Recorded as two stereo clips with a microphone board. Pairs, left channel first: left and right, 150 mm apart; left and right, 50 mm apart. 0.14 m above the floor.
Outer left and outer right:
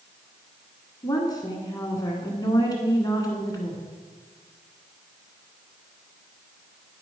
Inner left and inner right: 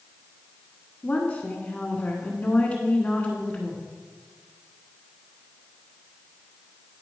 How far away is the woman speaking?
About 1.3 m.